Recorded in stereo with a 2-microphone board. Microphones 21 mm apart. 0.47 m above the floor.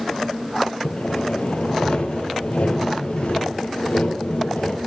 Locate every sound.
0.8 s sawing: 80° left, 3.5 m